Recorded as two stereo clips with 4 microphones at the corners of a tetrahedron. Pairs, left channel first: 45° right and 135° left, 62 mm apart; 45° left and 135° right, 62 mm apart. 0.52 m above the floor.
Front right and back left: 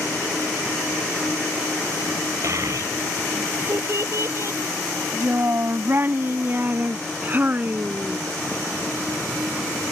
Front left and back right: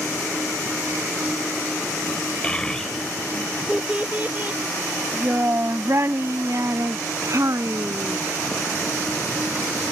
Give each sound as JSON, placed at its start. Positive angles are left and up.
{"t": 2.4, "sound": "a child speaking", "azimuth_deg": 115}